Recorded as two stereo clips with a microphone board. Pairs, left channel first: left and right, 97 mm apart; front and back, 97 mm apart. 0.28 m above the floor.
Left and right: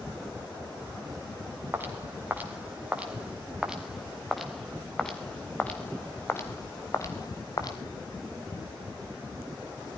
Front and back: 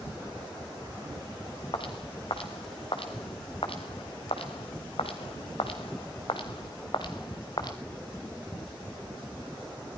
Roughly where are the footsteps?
Ahead right.